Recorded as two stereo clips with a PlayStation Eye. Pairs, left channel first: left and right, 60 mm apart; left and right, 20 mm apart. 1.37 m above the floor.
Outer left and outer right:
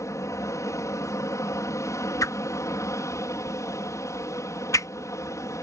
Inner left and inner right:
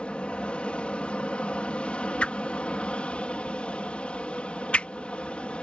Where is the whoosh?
65° left (ahead or behind).